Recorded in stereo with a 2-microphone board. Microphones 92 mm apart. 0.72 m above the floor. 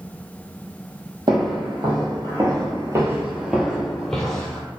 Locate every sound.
1.3 s footsteps: 50° right (ahead or behind), 1.3 m; by 4.6 s 15° left (ahead or behind), 1.0 m